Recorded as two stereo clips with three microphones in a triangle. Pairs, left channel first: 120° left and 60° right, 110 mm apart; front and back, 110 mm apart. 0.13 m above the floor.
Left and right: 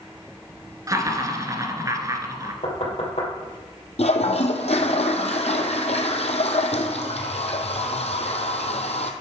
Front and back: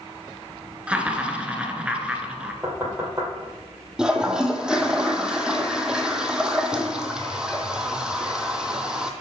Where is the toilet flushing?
95° left, 1.0 m.